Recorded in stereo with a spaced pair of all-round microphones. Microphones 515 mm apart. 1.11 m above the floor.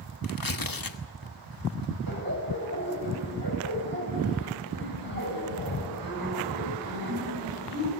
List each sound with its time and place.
0.2 s tearing paper: 40° left (ahead or behind), 1.2 m
2.1 s laughter: 40° right (ahead or behind), 6.5 m